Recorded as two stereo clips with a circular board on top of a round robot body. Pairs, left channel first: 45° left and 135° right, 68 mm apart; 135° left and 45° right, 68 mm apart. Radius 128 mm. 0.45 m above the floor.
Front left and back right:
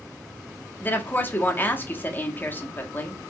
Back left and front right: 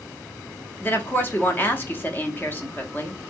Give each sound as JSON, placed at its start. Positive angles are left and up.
{"t": 0.8, "sound": "a woman speaking", "azimuth_deg": 90, "distance_m": 1.6}